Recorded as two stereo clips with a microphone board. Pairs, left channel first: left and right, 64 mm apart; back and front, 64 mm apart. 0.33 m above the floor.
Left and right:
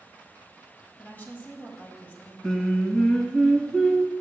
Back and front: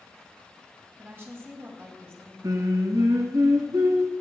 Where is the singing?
10° left, 1.2 m.